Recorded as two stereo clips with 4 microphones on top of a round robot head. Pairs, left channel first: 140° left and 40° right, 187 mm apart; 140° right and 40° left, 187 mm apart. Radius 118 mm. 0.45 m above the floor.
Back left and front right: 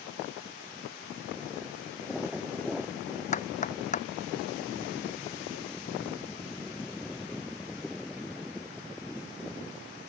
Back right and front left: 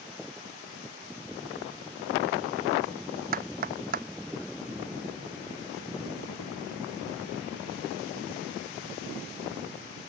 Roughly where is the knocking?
Left.